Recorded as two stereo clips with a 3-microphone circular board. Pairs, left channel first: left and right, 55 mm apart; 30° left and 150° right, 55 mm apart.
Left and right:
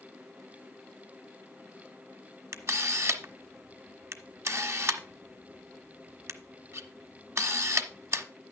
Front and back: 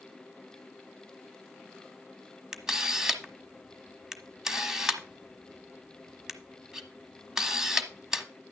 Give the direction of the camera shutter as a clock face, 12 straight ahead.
2 o'clock.